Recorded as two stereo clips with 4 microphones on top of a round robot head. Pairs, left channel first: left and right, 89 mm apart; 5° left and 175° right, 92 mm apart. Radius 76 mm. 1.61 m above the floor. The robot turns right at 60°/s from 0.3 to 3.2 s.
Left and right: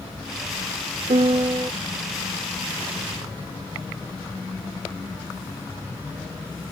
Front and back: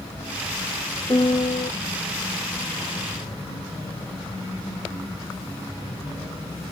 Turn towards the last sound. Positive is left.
turn(degrees=65)